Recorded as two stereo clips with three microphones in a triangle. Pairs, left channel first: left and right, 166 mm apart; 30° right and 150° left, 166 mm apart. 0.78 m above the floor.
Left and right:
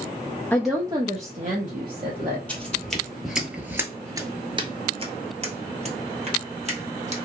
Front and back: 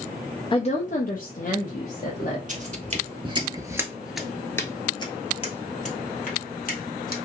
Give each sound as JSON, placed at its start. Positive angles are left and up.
{"t": 0.5, "sound": "a woman speaking", "azimuth_deg": 15, "distance_m": 0.5}
{"t": 2.5, "sound": "footsteps", "azimuth_deg": 170, "distance_m": 1.1}